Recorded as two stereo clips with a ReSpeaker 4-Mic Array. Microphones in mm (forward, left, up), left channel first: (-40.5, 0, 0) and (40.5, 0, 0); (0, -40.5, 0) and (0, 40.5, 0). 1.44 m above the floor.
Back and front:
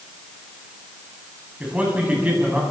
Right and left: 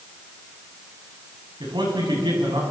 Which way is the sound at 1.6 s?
75° left.